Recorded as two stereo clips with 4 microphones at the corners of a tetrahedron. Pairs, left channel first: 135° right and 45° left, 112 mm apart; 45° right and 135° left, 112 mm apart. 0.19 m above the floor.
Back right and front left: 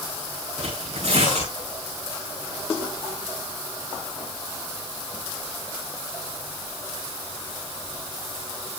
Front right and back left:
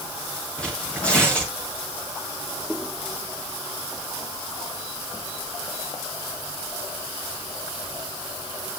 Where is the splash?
I don't hear a splash.